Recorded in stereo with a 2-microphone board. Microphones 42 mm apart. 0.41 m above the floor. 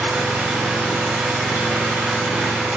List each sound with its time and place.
0.0 s an engine running: 40° right (ahead or behind), 0.9 m